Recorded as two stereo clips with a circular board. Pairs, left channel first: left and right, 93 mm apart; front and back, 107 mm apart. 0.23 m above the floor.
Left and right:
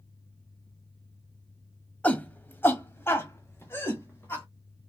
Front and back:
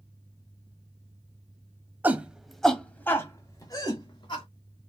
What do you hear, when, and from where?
2.0 s a shout: 135° left, 0.9 m; by 4.5 s 30° left, 1.5 m